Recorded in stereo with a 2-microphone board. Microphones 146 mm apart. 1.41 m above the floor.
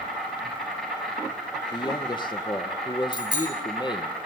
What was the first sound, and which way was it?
An insect, centre (ahead or behind).